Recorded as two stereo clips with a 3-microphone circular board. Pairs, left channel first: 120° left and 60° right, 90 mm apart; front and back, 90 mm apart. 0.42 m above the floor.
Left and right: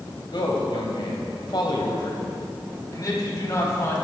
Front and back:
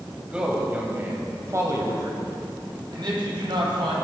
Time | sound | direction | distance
0.3 | a man speaking | 105° left | 2.5 m